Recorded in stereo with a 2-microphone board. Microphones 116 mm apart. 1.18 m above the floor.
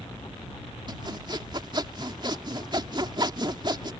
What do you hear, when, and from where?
0.9 s sawing: 40° right (ahead or behind)